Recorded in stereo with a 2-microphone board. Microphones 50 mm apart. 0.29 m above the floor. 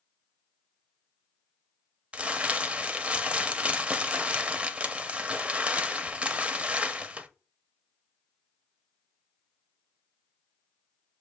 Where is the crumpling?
25° right (ahead or behind), 0.5 m.